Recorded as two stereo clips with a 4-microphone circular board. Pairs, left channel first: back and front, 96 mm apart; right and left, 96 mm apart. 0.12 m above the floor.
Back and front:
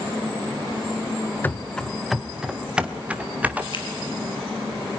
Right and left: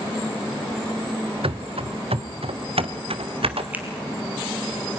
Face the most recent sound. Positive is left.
turn(degrees=160)